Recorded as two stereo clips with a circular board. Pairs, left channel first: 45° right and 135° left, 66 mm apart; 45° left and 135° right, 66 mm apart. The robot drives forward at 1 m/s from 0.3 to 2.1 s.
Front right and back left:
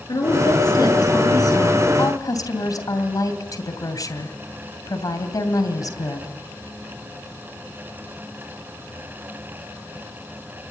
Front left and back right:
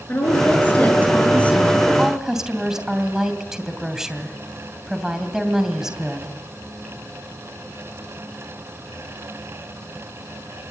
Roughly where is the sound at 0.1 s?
Ahead.